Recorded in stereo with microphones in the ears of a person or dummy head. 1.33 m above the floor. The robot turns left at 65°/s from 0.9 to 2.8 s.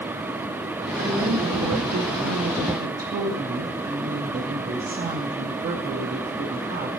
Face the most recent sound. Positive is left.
turn(degrees=-135)